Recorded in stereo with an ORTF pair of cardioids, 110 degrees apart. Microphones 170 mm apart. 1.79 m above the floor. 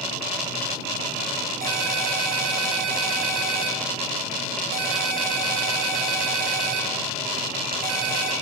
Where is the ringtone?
60° right, 2.5 m.